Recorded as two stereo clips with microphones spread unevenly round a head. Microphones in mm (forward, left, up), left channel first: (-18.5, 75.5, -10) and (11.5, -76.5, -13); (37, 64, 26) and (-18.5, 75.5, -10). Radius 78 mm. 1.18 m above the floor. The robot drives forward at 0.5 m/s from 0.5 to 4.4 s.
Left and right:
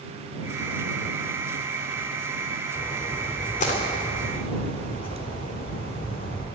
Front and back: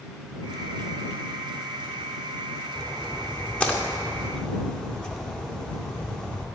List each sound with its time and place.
2.8 s a splash: 50° left, 3 m; by 6.5 s 65° left, 2.5 m